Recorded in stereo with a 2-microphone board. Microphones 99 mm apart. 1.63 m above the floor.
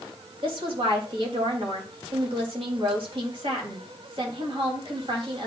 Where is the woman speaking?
65° right (ahead or behind), 3 m.